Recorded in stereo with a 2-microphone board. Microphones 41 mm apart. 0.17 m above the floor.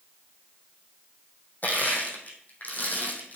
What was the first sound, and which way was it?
Crushing, 45° left (ahead or behind).